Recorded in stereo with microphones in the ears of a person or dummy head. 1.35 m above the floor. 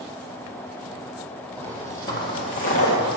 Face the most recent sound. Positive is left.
turn(degrees=50)  # may be behind; listen again after turning